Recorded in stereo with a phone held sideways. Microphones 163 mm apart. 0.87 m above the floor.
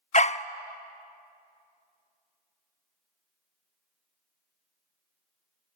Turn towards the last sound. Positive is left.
turn(degrees=45)  # may be behind; listen again after turning